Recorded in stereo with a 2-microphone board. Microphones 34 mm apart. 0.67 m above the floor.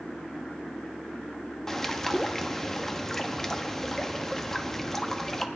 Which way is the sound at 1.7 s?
15° left (ahead or behind).